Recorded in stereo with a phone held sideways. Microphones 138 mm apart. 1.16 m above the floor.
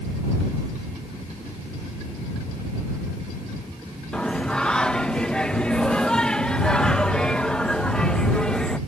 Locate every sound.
4.1 s singing: 5° left (ahead or behind)